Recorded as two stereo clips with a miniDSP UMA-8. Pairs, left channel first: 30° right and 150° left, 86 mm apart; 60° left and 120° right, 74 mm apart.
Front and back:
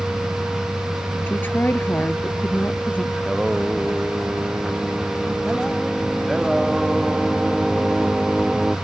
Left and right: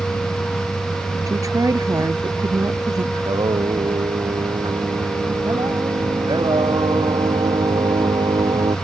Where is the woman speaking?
90° right; by 3.0 s 95° right.